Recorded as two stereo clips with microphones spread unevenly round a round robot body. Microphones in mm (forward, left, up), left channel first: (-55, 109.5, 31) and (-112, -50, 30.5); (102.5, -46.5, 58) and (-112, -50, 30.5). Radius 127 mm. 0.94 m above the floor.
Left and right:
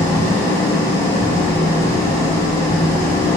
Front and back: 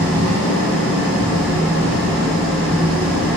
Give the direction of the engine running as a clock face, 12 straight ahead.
7 o'clock.